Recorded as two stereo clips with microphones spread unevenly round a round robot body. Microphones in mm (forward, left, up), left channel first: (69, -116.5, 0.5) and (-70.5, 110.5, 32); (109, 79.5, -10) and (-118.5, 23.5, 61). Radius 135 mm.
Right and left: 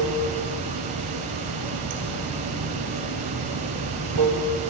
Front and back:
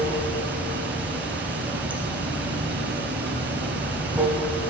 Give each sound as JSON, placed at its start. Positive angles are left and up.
{"t": 0.0, "sound": "running water", "azimuth_deg": 115, "distance_m": 0.9}